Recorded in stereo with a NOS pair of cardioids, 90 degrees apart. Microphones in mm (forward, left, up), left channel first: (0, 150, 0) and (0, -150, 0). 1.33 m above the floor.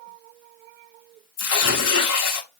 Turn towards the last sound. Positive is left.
turn(degrees=55)